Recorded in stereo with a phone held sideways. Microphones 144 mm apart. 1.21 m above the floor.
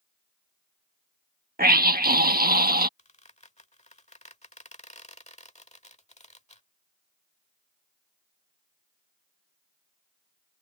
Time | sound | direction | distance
1.6 | a scream | 75° right (ahead or behind) | ?
3.0 | a squeak | 50° left (ahead or behind) | ?